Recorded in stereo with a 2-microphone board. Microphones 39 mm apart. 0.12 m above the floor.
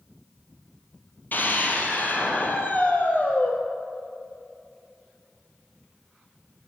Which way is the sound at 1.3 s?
50° left (ahead or behind).